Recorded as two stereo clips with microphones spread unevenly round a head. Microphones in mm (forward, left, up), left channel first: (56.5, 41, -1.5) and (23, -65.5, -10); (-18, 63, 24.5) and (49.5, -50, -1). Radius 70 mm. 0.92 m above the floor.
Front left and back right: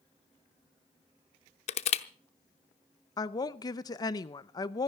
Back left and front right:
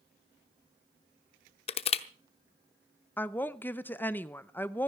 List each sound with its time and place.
1.7 s crushing: 90° left, 0.8 m
3.2 s a woman speaking: 40° left, 0.7 m